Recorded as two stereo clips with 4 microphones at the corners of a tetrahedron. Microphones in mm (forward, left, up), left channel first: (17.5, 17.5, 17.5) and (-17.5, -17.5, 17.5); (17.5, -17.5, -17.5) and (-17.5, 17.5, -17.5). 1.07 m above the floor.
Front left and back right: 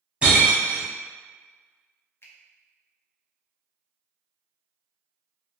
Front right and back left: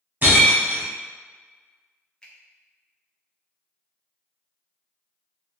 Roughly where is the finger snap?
Ahead.